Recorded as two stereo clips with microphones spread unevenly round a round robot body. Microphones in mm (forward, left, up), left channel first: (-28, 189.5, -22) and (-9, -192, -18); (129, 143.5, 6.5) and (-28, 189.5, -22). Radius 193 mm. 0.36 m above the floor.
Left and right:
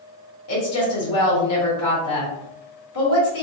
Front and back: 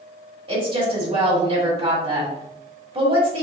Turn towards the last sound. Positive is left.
turn(degrees=130)